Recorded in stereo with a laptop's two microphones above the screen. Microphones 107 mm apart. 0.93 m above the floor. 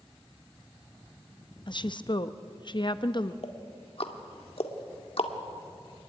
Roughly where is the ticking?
Left.